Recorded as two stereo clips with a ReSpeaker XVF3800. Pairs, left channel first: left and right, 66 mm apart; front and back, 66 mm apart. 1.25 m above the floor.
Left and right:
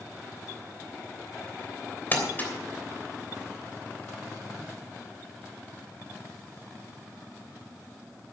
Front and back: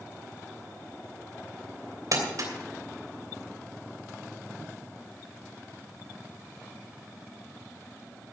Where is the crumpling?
150° left, 3 m.